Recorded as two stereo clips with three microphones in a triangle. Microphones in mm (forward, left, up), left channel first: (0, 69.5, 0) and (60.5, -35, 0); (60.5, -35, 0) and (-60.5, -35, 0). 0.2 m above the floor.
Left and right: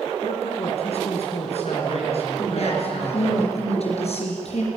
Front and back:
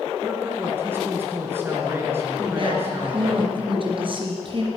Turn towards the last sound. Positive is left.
turn(degrees=140)